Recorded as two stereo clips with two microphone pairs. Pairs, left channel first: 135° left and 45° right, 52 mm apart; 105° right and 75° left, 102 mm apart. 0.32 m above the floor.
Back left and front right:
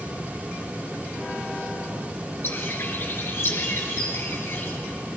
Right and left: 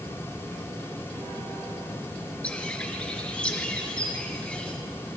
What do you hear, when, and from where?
2.4 s a bird: straight behind, 1.7 m